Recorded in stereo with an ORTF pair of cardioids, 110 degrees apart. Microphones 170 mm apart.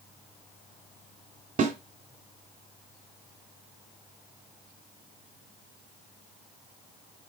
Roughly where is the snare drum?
Ahead right.